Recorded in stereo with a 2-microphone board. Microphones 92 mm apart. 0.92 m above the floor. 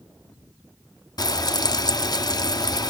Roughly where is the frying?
Left.